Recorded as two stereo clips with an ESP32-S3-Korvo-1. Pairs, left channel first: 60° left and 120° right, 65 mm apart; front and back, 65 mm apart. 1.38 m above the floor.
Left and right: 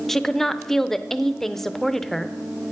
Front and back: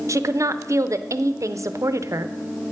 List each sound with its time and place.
0.1 s a woman speaking: 145° left, 0.5 m